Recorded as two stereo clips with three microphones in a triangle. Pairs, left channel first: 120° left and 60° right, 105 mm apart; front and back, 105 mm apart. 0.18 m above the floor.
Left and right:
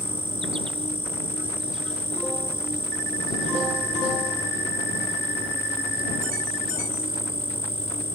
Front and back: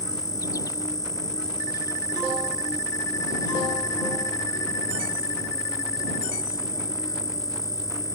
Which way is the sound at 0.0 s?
50° right.